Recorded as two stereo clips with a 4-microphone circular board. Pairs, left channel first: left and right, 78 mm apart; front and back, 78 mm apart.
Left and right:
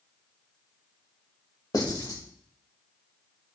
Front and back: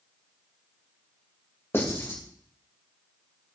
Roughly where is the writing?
Ahead left.